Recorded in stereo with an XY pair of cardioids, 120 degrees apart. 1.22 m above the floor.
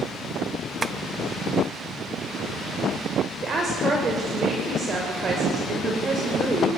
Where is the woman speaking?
40° right, 6 m.